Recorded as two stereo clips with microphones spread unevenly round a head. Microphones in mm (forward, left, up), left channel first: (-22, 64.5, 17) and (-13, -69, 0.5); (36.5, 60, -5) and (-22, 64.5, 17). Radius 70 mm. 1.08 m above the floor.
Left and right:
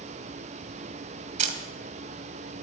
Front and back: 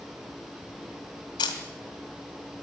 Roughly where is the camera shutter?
Ahead right.